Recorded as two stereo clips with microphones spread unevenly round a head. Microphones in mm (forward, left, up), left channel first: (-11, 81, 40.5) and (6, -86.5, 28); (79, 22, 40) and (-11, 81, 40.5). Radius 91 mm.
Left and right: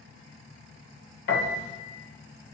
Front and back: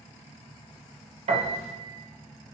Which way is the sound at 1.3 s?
120° left.